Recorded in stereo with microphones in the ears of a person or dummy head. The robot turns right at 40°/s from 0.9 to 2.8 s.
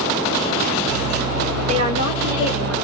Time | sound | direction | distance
1.7 | a woman speaking | 35° right | 1.2 m